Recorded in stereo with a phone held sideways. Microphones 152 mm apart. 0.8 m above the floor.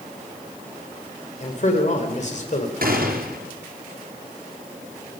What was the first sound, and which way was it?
A man speaking, 50° left (ahead or behind).